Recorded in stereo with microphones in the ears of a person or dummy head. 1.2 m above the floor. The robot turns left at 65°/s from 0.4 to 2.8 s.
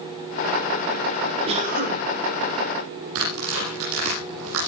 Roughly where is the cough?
Ahead right.